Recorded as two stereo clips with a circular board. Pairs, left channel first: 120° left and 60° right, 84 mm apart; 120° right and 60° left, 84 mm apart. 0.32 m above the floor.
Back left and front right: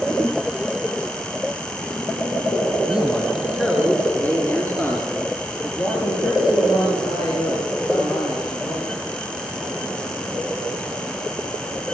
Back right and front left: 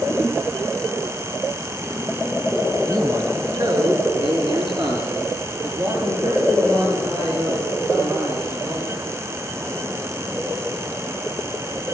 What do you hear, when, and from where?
2.9 s a man speaking: 20° left, 3.5 m; by 8.9 s 85° left, 9.5 m